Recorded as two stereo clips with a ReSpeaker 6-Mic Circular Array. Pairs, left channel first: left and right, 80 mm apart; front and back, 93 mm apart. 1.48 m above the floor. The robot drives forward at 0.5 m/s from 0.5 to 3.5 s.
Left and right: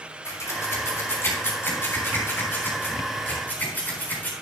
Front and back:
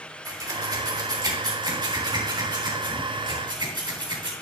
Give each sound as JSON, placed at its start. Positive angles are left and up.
{"t": 0.2, "sound": "scissors", "azimuth_deg": 135, "distance_m": 2.5}